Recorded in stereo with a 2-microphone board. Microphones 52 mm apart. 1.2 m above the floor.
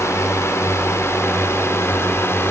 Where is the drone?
60° left (ahead or behind); by 2.5 s 50° left (ahead or behind).